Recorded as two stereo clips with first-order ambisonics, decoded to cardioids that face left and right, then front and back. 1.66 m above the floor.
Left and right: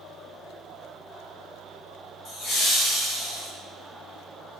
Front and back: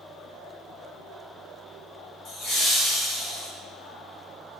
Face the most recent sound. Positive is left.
turn(degrees=40)